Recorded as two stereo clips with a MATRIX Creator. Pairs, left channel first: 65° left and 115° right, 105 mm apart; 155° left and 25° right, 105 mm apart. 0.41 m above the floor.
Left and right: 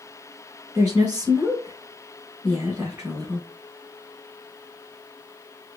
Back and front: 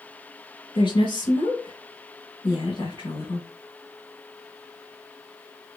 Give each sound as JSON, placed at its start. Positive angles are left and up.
{"t": 0.8, "sound": "a woman speaking", "azimuth_deg": 175, "distance_m": 1.7}